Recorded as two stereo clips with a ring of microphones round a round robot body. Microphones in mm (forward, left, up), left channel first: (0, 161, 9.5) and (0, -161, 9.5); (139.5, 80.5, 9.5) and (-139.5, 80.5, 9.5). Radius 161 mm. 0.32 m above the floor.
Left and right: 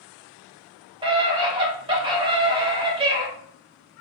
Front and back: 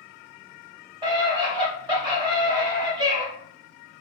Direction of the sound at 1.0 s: 135° right.